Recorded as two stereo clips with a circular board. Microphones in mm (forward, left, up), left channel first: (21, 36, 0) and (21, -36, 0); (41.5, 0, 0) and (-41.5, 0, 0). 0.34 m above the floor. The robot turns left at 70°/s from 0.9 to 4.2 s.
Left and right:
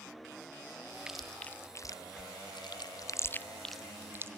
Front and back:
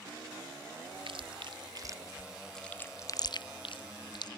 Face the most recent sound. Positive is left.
turn(degrees=-30)